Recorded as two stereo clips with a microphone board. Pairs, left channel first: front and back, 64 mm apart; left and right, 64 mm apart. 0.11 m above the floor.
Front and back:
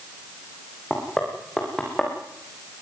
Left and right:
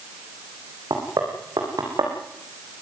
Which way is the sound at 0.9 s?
80° right.